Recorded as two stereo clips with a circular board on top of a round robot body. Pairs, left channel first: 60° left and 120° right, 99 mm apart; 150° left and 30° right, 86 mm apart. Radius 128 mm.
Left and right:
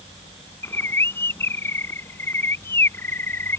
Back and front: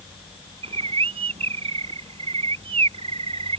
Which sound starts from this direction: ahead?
A bird, at 0.6 s.